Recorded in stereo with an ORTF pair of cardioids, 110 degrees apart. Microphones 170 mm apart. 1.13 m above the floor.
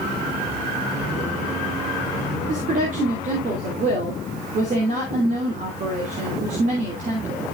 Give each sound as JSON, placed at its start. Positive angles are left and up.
{"t": 2.5, "sound": "a woman speaking", "azimuth_deg": -45, "distance_m": 3.0}